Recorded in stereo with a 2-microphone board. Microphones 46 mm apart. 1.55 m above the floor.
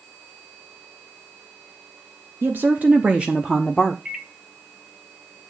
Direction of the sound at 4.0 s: 15° right (ahead or behind).